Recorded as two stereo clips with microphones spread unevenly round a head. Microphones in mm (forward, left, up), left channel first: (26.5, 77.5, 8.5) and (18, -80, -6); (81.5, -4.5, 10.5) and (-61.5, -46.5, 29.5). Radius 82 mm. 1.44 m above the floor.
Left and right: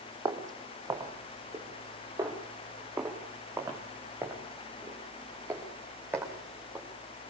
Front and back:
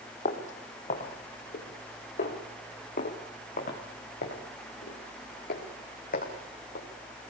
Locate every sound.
0.2 s footsteps: 25° right, 3 m; by 6.8 s 15° right, 6.5 m